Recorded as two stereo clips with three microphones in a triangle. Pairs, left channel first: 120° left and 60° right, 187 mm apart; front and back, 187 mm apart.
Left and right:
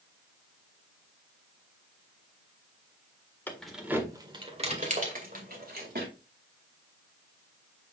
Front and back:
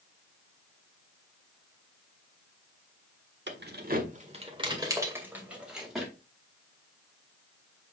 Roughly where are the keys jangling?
Behind.